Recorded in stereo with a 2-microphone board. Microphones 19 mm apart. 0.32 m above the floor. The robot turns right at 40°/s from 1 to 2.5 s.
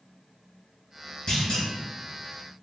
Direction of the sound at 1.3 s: 45° left (ahead or behind).